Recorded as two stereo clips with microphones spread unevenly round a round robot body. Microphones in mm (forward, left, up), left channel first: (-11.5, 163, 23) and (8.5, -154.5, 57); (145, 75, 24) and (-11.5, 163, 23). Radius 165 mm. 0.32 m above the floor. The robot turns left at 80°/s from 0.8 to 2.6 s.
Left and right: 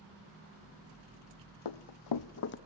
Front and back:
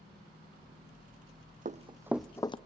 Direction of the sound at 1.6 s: 105° left.